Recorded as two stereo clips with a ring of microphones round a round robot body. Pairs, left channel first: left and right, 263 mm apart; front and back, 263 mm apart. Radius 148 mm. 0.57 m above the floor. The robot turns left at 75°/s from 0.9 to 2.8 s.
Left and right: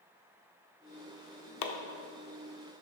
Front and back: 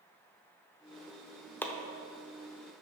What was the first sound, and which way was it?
Chopping, 85° left.